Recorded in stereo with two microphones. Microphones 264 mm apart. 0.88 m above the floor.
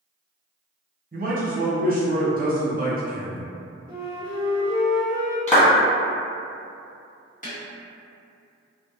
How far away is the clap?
About 1.0 m.